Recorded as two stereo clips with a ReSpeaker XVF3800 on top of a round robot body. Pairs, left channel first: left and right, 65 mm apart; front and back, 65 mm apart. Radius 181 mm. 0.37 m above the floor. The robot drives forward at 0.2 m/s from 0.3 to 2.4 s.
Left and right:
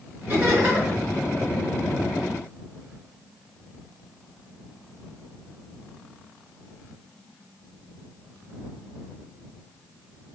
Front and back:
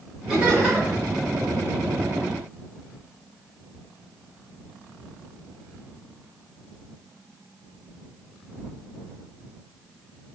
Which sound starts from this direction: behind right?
Laughter, at 0.3 s.